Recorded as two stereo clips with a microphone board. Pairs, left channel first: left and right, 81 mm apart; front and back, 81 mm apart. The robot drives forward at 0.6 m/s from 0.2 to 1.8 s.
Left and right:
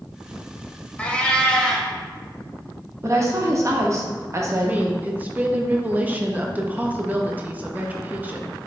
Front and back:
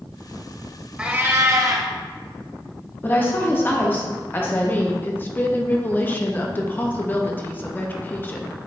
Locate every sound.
1.0 s a cat meowing: 130° left, 0.5 m; by 1.9 s 165° left, 0.8 m
3.0 s a woman speaking: 55° right, 0.8 m
4.6 s a woman speaking: 40° right, 0.6 m